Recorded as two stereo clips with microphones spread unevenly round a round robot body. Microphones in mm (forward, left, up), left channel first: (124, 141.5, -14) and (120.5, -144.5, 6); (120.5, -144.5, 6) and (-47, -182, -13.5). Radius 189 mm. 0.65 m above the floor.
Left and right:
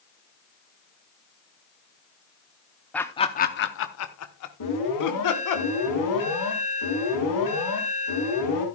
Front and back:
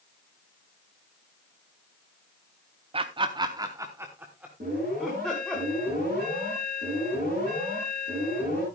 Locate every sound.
2.9 s laughter: 170° left, 0.6 m; by 5.6 s 100° left, 1.6 m
4.6 s an alarm: 125° left, 5.5 m